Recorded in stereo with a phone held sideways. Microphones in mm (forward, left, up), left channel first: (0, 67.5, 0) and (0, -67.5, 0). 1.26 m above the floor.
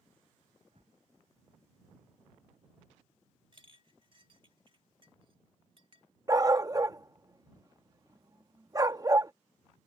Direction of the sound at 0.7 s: 50° right (ahead or behind).